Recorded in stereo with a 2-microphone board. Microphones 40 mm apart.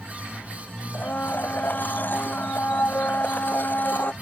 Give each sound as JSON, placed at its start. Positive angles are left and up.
{"t": 0.9, "sound": "a blender", "side_deg": 50}